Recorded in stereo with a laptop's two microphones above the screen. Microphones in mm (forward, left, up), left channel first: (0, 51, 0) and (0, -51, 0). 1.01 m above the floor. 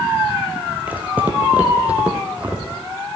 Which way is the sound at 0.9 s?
15° right (ahead or behind).